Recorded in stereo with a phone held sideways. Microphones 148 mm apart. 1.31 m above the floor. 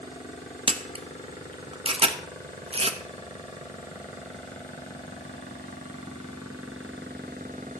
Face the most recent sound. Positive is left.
turn(degrees=-40)  # may be behind; listen again after turning